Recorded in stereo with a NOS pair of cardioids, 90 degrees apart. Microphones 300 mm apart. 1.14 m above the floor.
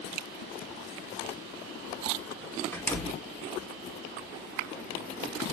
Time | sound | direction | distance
2.7 | a door slam | 5° left | 1.5 m